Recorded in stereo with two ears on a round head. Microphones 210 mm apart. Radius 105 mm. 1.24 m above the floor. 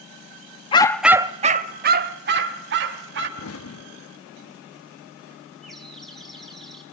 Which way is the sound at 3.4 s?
65° left (ahead or behind).